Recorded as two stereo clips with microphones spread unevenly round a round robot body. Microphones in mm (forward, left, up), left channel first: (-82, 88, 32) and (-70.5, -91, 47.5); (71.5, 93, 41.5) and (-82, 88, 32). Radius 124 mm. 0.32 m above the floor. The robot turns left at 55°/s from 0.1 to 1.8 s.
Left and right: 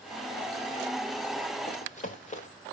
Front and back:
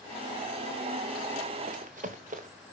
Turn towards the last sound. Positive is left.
turn(degrees=145)